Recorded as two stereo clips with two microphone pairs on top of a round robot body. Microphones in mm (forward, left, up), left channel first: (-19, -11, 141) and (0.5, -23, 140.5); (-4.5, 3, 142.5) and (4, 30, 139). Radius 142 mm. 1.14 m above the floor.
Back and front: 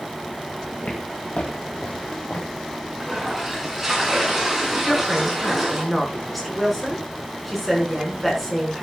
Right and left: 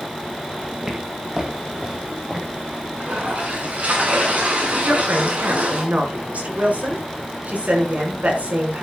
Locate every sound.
0.8 s footsteps: 135° left, 2 m
3.0 s a toilet flushing: 45° left, 6.5 m
4.8 s a woman speaking: 55° left, 6 m